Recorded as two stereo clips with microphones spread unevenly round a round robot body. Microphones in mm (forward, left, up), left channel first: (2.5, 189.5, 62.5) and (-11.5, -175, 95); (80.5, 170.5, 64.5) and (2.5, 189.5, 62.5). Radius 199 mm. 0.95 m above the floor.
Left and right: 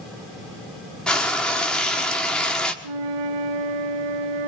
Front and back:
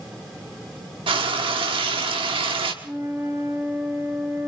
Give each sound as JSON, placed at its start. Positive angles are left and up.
{"t": 1.1, "sound": "frying", "azimuth_deg": 175, "distance_m": 1.2}
{"t": 2.8, "sound": "a flute", "azimuth_deg": -115, "distance_m": 0.8}